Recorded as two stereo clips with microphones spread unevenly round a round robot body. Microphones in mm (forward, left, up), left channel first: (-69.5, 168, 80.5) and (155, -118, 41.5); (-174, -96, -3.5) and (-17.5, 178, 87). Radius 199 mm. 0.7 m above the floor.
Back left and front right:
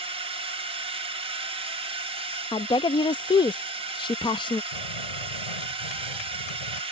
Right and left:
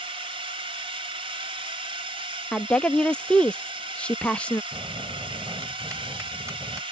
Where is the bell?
145° left.